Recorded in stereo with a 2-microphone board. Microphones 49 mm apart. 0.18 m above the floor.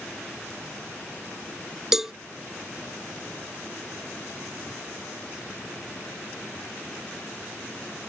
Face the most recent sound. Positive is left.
turn(degrees=-10)  # may be behind; listen again after turning